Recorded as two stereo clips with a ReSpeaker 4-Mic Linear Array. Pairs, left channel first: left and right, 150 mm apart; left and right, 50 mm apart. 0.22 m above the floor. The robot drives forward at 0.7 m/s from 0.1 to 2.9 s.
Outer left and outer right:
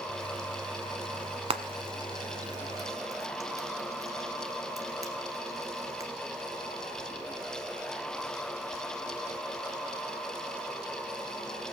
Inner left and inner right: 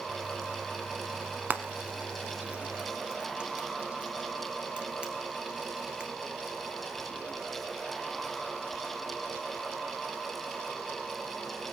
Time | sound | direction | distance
1.5 | frying | 40° right (ahead or behind) | 1.0 m